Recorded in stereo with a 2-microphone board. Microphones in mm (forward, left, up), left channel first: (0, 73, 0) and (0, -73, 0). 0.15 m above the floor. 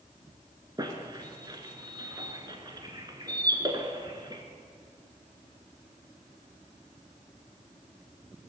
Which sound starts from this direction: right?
A squeak, at 0.8 s.